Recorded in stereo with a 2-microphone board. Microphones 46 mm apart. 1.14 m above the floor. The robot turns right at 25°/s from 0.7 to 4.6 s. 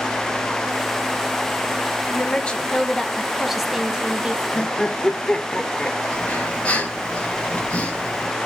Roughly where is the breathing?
Left.